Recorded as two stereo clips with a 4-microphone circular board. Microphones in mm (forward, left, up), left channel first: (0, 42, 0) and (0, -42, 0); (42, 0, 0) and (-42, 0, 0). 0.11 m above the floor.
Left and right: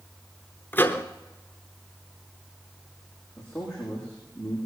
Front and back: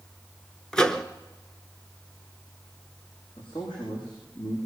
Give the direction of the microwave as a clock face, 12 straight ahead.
10 o'clock.